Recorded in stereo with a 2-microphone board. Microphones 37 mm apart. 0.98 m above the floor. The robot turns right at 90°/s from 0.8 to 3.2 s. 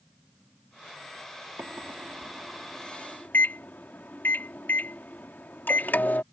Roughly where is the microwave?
Right.